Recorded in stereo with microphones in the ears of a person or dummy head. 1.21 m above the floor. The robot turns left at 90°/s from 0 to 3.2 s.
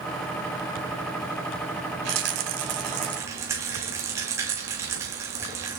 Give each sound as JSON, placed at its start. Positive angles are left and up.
{"t": 2.0, "sound": "a rattle", "azimuth_deg": -60, "distance_m": 2.0}